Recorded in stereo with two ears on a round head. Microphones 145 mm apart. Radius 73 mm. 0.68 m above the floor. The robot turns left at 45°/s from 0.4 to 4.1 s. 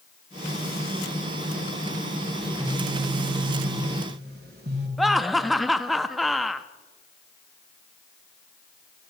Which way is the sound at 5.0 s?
Centre (ahead or behind).